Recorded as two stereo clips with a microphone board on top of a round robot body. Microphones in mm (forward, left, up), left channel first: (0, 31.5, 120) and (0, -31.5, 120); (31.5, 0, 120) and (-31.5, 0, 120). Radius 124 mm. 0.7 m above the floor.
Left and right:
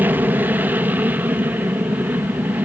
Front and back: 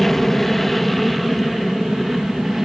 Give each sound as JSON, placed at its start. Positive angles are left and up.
{"t": 0.0, "sound": "an aircraft", "azimuth_deg": -80}